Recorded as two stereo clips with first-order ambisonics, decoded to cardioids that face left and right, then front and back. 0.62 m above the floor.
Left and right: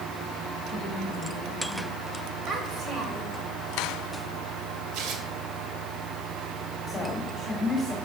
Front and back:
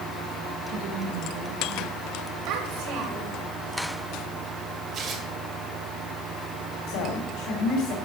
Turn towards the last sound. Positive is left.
turn(degrees=15)